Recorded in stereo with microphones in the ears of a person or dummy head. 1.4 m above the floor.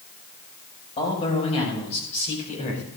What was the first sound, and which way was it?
A man speaking, 35° left (ahead or behind).